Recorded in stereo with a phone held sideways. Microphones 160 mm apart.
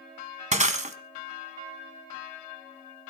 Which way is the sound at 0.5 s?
50° right (ahead or behind).